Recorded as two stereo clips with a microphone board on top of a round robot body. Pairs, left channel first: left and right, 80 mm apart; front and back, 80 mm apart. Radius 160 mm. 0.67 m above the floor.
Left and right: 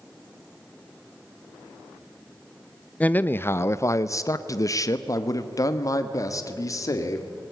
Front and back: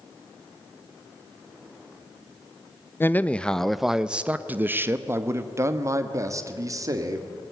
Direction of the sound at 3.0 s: 35° left.